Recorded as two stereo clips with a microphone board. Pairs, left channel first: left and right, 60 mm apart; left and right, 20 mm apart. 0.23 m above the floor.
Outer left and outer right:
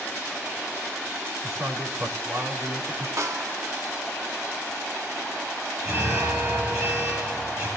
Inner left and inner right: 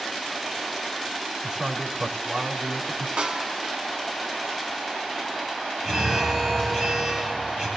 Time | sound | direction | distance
1.4 | a man speaking | 60° right (ahead or behind) | 3 m
3.2 | a snare drum | 65° right (ahead or behind) | 0.7 m
5.8 | an alarm | 60° right (ahead or behind) | 7 m